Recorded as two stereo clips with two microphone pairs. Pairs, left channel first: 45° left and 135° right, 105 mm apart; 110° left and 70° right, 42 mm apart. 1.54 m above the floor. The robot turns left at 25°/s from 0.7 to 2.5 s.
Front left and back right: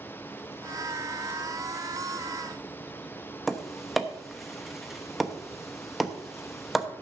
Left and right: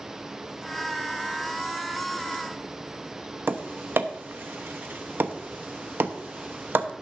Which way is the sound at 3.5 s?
45° right.